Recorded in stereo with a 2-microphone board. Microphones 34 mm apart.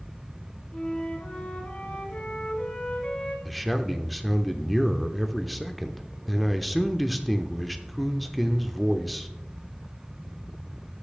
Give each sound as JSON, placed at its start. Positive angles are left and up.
{"t": 0.7, "sound": "a flute", "side_deg": 45, "distance_m": 2.5}
{"t": 3.5, "sound": "a man speaking", "side_deg": 0, "distance_m": 0.7}